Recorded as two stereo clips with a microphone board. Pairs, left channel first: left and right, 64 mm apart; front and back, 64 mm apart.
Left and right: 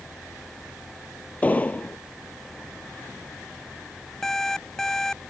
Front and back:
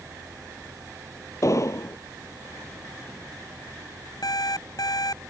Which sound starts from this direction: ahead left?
An explosion, at 1.4 s.